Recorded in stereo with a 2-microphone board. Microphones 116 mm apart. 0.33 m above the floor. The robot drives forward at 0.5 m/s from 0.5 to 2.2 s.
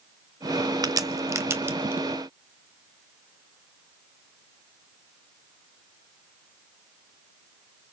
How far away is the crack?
About 0.5 m.